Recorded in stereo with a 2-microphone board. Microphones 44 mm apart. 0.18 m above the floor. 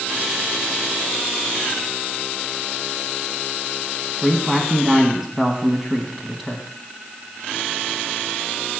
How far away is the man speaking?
About 1.1 m.